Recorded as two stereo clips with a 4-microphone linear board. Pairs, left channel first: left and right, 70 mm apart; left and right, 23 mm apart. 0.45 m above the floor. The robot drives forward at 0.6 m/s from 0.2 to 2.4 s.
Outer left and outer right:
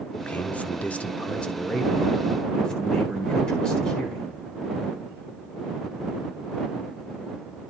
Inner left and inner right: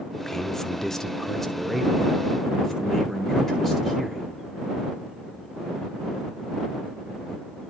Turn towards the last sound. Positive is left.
turn(degrees=10)  # may be behind; listen again after turning